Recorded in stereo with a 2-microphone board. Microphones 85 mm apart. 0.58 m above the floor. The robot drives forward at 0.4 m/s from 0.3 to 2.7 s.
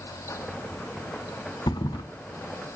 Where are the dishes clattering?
No dishes clattering in this recording.